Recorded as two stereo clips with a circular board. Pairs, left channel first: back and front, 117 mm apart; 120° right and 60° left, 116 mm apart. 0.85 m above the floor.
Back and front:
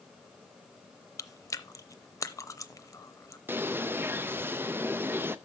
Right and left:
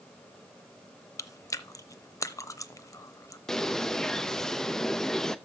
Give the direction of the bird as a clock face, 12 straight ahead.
1 o'clock.